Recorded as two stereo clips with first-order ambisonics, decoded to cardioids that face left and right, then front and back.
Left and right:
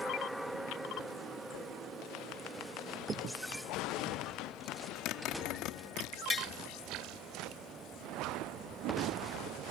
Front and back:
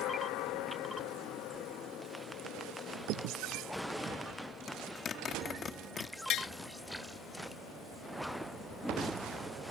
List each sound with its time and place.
3.0 s a crack: 150° right
4.7 s a zipper: 60° left
6.3 s tapping: 25° left